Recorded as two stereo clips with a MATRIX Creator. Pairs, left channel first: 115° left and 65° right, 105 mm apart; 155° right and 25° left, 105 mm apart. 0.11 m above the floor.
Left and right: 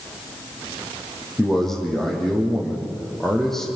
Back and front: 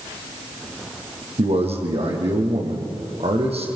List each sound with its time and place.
1.4 s a man speaking: 25° left, 5 m